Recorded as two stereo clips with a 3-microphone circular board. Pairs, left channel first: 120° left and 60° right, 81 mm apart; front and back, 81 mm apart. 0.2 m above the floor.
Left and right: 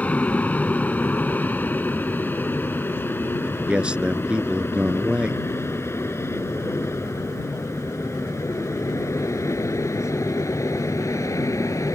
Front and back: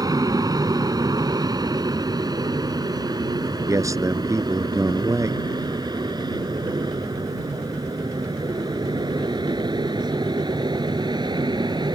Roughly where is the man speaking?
Behind right.